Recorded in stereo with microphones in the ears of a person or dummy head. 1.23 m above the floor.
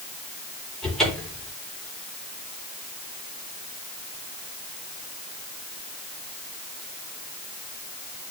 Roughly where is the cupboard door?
Centre.